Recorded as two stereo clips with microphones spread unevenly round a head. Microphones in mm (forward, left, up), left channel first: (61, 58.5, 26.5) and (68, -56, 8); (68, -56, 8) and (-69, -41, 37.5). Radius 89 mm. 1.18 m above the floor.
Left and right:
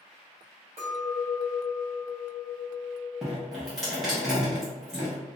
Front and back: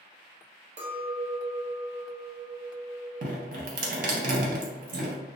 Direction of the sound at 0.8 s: 150° right.